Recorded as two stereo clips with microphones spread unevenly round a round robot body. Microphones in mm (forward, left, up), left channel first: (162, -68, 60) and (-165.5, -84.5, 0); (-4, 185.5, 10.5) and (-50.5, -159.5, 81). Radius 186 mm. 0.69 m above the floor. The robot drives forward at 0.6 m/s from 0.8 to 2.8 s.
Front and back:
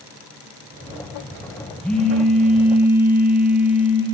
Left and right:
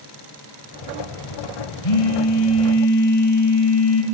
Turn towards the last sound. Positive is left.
turn(degrees=95)